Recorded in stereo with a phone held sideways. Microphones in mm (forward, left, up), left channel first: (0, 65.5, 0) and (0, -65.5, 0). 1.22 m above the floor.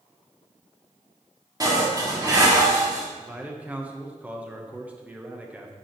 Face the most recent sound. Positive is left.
turn(degrees=-10)  # may be behind; listen again after turning